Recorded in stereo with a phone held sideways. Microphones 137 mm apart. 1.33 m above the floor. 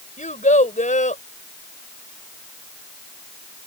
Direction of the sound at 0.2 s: 65° left (ahead or behind).